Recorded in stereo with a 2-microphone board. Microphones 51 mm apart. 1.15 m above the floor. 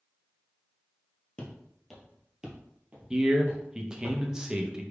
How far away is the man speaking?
About 0.7 m.